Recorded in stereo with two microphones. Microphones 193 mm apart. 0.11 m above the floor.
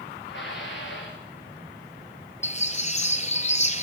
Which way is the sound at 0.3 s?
75° left (ahead or behind).